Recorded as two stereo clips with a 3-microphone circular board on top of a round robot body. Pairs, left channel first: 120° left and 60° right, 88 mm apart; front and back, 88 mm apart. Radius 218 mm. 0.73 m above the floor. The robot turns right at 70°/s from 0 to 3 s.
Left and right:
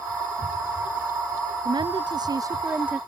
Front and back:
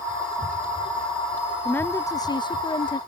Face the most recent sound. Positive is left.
turn(degrees=20)